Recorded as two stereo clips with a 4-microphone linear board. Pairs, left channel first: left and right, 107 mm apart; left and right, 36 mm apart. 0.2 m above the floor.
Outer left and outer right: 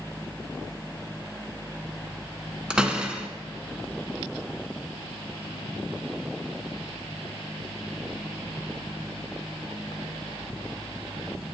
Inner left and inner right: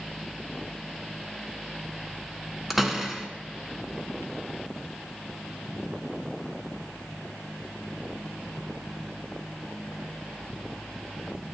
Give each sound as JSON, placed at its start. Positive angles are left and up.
{"t": 2.7, "sound": "a door slam", "side_deg": -10, "distance_m": 1.3}